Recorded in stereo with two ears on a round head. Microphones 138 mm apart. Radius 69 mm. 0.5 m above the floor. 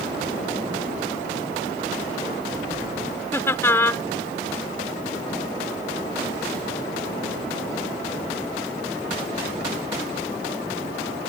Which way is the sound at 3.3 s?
15° left (ahead or behind).